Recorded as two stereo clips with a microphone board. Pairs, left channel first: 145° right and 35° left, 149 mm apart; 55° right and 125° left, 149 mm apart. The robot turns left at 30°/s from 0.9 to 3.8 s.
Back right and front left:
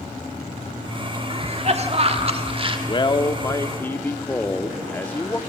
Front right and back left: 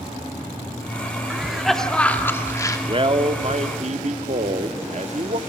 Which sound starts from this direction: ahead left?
A cough, at 1.3 s.